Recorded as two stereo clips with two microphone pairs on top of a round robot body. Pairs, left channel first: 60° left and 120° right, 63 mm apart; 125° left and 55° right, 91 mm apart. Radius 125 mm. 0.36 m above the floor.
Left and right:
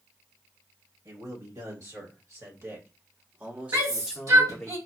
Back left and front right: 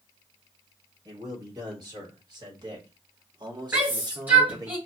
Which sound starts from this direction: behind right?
A shout, at 3.7 s.